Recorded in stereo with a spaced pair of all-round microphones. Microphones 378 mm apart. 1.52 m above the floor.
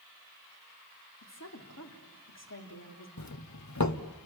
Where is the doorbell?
45° left (ahead or behind), 1.0 m.